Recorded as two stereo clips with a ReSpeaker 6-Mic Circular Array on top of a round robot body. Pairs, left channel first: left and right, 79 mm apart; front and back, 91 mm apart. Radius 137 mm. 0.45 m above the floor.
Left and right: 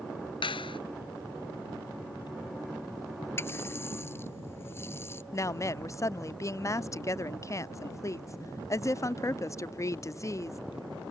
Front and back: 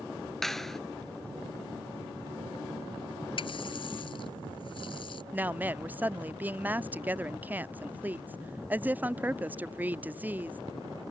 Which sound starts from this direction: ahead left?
A running tap, at 3.4 s.